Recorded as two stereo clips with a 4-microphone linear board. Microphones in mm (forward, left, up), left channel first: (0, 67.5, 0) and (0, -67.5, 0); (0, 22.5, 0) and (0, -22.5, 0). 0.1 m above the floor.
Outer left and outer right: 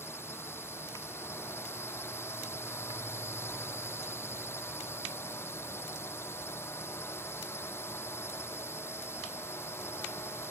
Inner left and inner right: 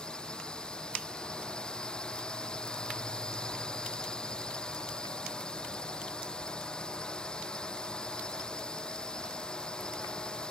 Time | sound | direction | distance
0.0 | a drone | 20° left (ahead or behind) | ?